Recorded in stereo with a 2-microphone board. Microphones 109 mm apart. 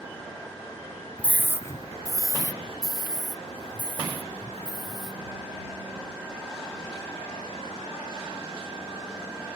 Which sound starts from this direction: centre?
A scream, at 1.2 s.